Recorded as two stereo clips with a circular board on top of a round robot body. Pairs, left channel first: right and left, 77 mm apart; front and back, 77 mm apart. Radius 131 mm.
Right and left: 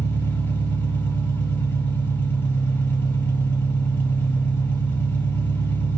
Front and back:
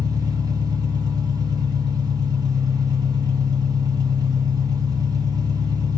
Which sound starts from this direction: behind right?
An engine running, at 0.0 s.